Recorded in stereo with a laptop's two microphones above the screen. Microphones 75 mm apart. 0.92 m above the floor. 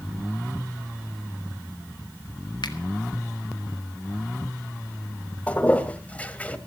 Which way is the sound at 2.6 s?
75° left (ahead or behind).